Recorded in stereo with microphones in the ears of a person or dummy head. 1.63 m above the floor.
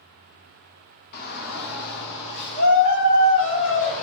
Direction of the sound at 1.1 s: 50° left (ahead or behind).